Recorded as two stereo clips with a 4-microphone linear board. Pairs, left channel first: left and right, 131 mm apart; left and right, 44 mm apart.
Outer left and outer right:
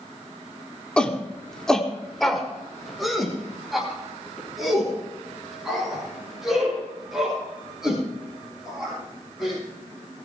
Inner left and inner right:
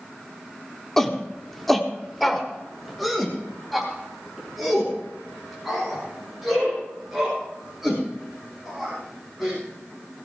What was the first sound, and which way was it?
A shout, 10° left (ahead or behind).